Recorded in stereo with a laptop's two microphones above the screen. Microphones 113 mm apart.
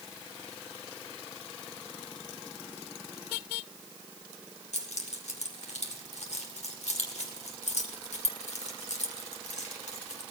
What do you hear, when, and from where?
4.7 s keys jangling: 80° left, 2 m